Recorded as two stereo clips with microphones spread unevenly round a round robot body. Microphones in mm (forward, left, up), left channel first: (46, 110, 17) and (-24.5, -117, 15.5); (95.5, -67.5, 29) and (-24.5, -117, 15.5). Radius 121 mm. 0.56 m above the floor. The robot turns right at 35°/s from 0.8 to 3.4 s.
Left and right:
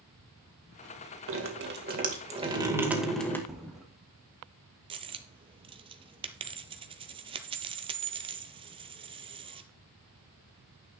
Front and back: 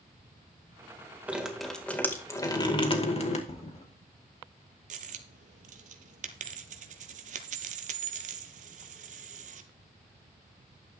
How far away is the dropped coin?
About 0.8 m.